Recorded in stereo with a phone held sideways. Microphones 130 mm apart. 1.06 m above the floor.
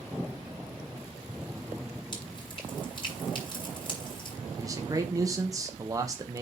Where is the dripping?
35° left (ahead or behind), 5 m.